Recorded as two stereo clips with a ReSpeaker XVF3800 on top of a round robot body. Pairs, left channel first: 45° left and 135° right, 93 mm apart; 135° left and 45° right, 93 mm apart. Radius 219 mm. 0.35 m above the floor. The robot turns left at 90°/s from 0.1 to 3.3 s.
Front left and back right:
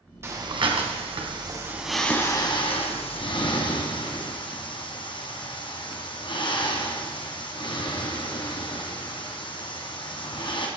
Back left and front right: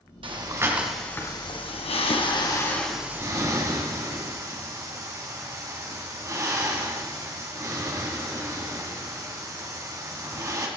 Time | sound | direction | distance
0.2 | breathing | 70° right | 2 m